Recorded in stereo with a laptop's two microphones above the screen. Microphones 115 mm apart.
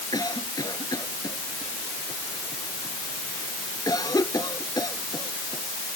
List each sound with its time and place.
0.1 s a cough: 35° left (ahead or behind)